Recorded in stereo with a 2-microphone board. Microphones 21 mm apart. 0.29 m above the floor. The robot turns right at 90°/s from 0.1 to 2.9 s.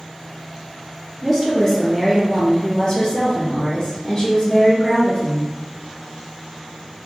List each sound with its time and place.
1.2 s a woman speaking: 25° right, 1.4 m; by 5.5 s 125° left, 1.4 m